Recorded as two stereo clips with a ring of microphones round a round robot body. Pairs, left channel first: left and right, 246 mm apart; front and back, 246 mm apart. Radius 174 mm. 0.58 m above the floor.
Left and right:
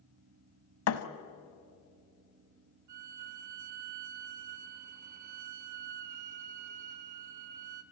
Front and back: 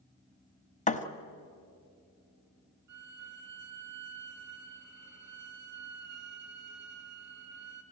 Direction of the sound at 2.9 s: 120° right.